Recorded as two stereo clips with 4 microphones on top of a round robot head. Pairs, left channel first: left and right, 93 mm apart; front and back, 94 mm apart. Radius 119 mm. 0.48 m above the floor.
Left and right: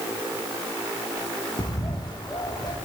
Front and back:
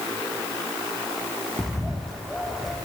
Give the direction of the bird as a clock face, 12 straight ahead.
9 o'clock.